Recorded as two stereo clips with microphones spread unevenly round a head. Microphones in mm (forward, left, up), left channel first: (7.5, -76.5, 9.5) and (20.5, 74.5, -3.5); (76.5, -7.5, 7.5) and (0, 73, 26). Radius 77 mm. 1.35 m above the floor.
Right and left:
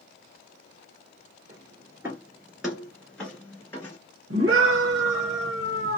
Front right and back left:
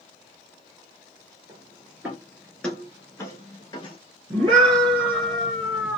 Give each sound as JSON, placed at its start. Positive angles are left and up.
{"t": 1.5, "sound": "footsteps", "azimuth_deg": 145, "distance_m": 1.5}
{"t": 4.3, "sound": "a scream", "azimuth_deg": 90, "distance_m": 1.0}